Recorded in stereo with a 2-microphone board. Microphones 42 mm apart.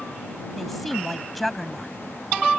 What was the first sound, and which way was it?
A woman speaking, centre (ahead or behind).